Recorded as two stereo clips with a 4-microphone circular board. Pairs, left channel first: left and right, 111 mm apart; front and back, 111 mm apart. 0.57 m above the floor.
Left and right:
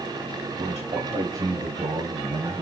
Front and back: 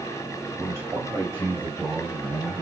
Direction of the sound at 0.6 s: 115° right.